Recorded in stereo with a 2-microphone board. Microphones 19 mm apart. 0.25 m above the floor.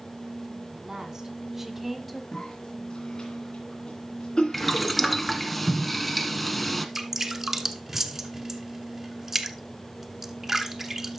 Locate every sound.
0.7 s a woman speaking: 35° right (ahead or behind), 2 m; by 2.2 s 10° left (ahead or behind), 1.3 m
2.3 s a cough: 50° left (ahead or behind), 2.5 m
4.5 s boiling: centre (ahead or behind), 1.1 m
7.0 s dripping: 20° right (ahead or behind), 1.2 m